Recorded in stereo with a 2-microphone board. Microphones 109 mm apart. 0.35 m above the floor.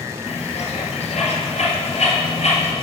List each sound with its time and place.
0.3 s a bird: 90° left, 1.9 m